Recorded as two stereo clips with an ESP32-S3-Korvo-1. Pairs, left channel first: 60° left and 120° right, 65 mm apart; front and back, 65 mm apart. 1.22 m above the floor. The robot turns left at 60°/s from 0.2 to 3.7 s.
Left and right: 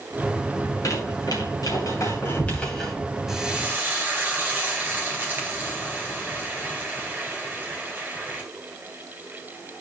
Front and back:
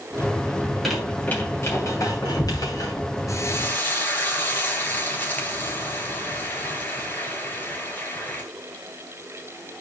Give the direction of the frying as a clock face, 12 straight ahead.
1 o'clock.